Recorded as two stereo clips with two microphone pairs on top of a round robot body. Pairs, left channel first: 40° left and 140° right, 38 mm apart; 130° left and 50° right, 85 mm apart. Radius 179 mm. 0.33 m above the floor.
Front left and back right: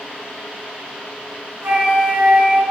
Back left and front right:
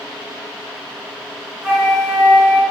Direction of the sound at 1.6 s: 135° right.